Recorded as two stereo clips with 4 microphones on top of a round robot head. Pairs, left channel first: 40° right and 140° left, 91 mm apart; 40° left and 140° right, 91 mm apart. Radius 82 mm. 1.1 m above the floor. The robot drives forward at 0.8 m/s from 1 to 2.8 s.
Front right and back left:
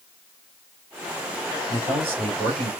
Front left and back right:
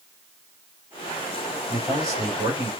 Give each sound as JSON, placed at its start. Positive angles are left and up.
{"t": 1.7, "sound": "a man speaking", "azimuth_deg": 160, "distance_m": 3.0}